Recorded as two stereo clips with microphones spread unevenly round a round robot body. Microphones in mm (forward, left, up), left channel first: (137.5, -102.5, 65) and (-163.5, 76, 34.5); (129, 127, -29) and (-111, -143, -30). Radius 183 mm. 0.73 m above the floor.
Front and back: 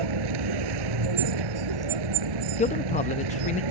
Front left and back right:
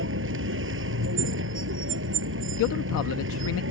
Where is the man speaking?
35° left.